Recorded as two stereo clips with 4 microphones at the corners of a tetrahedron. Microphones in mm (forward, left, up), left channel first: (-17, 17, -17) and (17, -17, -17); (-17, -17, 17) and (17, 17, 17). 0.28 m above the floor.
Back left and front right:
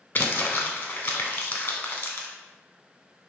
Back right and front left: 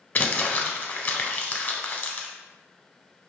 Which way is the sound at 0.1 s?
Straight behind.